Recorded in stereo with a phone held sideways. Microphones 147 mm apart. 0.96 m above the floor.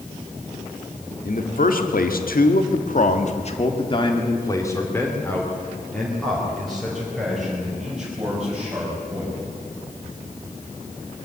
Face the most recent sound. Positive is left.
turn(degrees=-10)  # may be behind; listen again after turning